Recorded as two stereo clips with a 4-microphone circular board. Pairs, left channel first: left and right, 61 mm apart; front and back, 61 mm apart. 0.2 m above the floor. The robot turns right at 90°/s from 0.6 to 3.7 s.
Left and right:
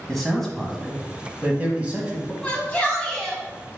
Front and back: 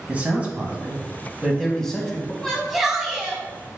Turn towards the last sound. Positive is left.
turn(degrees=180)